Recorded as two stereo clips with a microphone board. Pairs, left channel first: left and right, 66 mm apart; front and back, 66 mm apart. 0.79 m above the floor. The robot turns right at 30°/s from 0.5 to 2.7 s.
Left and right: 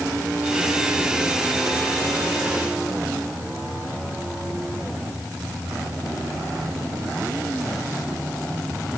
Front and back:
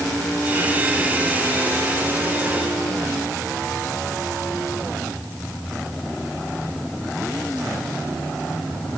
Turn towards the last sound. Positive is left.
No sound to turn to.